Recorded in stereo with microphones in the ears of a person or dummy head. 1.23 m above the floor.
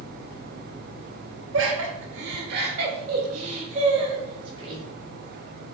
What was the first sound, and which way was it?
Laughter, 75° right (ahead or behind).